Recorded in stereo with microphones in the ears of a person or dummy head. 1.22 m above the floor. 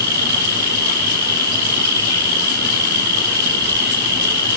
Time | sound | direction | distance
0.0 | an insect | 60° right (ahead or behind) | 4 m